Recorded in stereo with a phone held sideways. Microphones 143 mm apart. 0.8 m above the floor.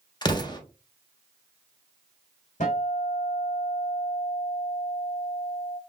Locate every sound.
0.2 s an explosion: 30° left (ahead or behind), 1.0 m
2.6 s a guitar: 65° left (ahead or behind), 1.9 m